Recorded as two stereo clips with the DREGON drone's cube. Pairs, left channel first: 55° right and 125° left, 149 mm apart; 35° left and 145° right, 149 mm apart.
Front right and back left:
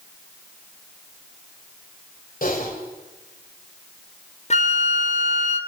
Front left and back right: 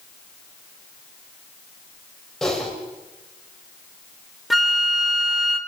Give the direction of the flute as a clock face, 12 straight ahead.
2 o'clock.